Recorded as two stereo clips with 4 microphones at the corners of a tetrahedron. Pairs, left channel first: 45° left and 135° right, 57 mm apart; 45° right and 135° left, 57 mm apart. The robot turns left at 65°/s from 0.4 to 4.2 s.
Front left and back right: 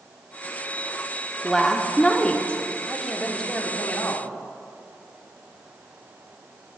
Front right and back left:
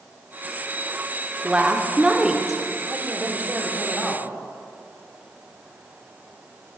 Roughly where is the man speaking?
Behind left.